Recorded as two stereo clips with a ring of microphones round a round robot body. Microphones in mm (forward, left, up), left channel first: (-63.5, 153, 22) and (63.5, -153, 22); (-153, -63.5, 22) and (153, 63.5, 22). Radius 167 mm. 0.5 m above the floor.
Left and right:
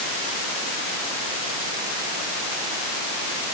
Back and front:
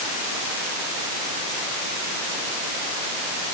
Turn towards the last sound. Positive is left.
No sound to turn to.